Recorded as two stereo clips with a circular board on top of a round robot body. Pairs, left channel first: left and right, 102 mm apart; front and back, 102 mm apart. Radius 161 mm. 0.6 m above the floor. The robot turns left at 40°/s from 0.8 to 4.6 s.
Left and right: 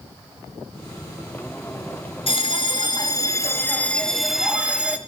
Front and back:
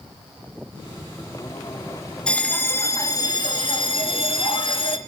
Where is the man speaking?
I don't hear a man speaking.